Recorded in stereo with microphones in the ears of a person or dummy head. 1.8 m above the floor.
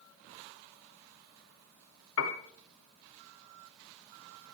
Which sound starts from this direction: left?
A piano, at 2.2 s.